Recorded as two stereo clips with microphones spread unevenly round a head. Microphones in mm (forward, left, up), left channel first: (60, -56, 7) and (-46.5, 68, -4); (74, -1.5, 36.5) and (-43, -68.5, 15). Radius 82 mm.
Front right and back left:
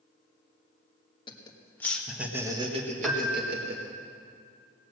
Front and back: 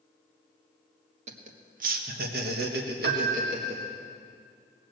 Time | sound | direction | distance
1.3 | laughter | 115° right | 1.7 m
3.0 | a piano | 140° right | 1.3 m